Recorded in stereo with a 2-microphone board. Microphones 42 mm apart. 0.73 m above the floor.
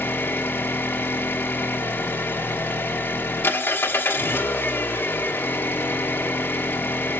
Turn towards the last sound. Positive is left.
turn(degrees=60)  # may be behind; listen again after turning